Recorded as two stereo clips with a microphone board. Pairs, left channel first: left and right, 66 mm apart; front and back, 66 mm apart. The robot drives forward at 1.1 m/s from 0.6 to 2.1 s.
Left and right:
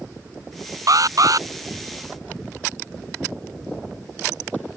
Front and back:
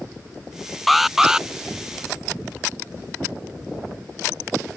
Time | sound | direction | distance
0.9 | an alarm | 90° right | ?